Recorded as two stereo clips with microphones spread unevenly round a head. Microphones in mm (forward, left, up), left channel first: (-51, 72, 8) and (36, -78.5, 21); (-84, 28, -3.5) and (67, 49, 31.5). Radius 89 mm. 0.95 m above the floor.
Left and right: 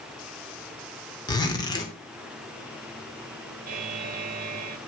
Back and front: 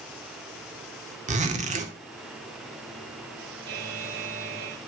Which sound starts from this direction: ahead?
A buzzer, at 3.7 s.